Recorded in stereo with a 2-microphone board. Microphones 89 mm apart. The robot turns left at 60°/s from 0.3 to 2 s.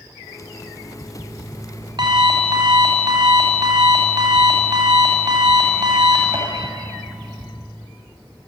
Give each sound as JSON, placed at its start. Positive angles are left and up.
{"t": 0.4, "sound": "an alarm clock", "azimuth_deg": -35, "distance_m": 3.5}